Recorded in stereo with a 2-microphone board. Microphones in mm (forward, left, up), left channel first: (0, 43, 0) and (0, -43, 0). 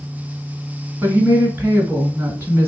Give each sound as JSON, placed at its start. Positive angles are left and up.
{"t": 1.0, "sound": "a woman speaking", "side_deg": -20, "distance_m": 1.5}